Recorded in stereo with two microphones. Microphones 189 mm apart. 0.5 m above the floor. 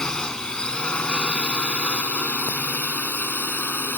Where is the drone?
5° left (ahead or behind); by 4.0 s 10° left (ahead or behind).